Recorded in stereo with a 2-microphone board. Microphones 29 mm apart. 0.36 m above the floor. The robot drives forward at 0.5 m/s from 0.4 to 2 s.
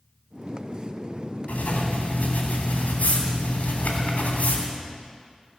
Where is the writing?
65° left (ahead or behind), 3 m.